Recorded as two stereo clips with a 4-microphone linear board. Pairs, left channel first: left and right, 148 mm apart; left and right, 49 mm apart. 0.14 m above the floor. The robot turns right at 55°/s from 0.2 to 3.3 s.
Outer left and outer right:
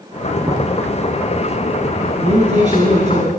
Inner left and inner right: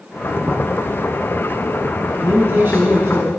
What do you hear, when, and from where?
0.4 s knocking: 25° right (ahead or behind), 1.2 m; by 0.7 s 20° right (ahead or behind), 1.2 m
2.2 s a man speaking: 125° right, 2 m; by 3.3 s 65° right, 2 m